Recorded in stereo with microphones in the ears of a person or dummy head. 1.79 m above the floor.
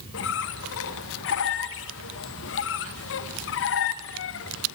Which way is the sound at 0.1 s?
65° left (ahead or behind).